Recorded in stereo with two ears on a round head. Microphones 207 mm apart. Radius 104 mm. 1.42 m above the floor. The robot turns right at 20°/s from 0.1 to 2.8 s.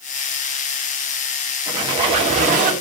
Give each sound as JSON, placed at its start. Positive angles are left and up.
{"t": 1.7, "sound": "a squeak", "side_deg": -20, "distance_m": 1.6}